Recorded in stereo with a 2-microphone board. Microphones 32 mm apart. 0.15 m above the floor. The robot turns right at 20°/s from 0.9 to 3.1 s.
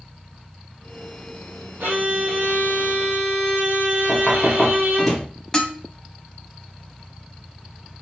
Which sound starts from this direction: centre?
Knocking, at 4.1 s.